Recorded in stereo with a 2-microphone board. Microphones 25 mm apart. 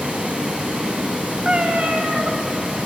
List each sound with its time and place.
0.0 s running water: 65° right (ahead or behind), 4 m
1.4 s a cat meowing: 60° right (ahead or behind), 1.1 m